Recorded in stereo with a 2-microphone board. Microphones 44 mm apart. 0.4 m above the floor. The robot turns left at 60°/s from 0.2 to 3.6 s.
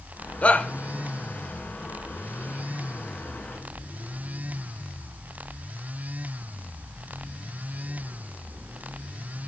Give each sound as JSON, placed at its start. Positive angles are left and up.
{"t": 0.4, "sound": "a shout", "side_deg": 35, "distance_m": 1.0}